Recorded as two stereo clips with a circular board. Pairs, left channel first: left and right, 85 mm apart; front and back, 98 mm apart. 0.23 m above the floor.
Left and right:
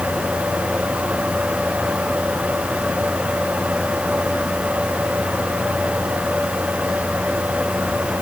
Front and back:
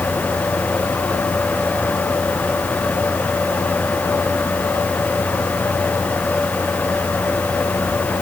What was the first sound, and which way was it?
Only background noise.